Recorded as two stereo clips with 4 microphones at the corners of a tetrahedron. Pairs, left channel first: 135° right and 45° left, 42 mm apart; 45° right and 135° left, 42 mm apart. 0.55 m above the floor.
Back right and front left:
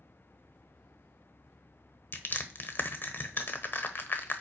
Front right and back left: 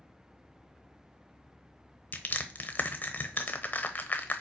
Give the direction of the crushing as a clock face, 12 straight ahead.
3 o'clock.